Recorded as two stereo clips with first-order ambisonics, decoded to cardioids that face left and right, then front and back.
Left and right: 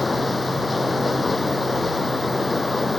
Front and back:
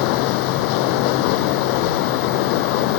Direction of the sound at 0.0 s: 10° left.